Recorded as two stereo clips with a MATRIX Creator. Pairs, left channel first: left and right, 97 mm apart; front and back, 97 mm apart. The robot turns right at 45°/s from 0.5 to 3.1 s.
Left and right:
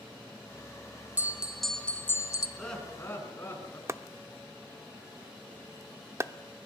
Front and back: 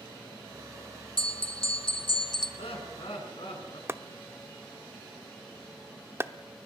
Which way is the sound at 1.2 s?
20° right.